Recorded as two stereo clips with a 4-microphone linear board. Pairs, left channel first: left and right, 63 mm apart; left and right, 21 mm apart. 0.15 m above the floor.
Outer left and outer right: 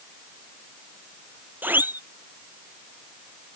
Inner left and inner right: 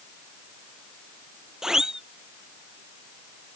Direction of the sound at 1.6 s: 30° right (ahead or behind).